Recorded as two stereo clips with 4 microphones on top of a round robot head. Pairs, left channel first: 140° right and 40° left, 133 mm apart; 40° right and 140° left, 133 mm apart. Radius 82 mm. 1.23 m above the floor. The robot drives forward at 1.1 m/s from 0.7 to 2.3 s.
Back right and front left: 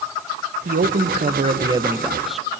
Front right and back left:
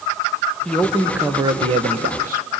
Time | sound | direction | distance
0.7 | a man speaking | 45° left | 1.4 m